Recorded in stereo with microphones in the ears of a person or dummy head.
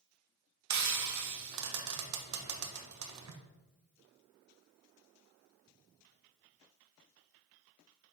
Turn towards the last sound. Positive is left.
turn(degrees=-80)